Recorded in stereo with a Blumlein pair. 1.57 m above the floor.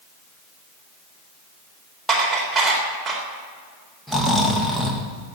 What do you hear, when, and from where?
2.1 s dishes clattering: 5° right, 4 m
4.1 s snoring: 5° left, 2 m